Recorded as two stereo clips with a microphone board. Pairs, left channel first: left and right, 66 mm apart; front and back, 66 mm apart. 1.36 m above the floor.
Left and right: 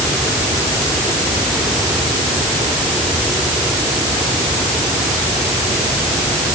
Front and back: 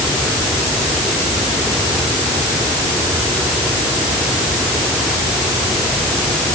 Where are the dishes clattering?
I don't hear dishes clattering.